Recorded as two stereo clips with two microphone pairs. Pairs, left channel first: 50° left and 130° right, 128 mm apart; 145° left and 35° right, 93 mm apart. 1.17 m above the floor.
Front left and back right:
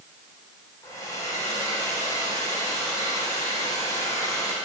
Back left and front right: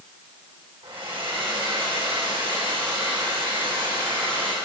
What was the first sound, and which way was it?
A hair dryer, 15° right.